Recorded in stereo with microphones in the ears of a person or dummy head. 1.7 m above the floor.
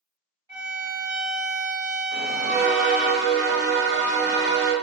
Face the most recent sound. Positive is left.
turn(degrees=-50)  # may be behind; listen again after turning